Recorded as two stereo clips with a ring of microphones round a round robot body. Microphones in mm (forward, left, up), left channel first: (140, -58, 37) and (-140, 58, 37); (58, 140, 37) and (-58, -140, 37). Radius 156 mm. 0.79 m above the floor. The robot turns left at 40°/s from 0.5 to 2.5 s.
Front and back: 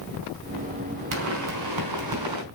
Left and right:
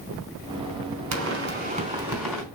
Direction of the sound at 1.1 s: 155° right.